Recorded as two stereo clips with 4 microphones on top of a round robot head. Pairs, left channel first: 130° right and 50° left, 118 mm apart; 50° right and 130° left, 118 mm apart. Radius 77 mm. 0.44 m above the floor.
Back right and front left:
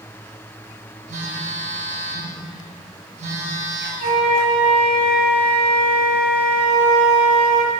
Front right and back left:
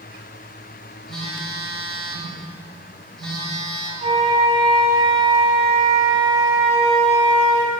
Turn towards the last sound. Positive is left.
turn(degrees=80)